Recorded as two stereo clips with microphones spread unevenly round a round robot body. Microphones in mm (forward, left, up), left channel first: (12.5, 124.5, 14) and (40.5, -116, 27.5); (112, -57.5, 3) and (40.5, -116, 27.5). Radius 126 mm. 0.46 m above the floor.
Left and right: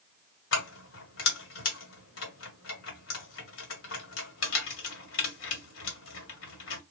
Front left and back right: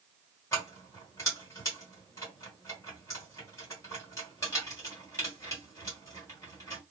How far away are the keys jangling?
About 1.3 m.